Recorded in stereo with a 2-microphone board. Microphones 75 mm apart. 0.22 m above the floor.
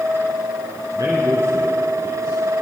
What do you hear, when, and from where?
0.9 s a man speaking: 65° right (ahead or behind), 2.5 m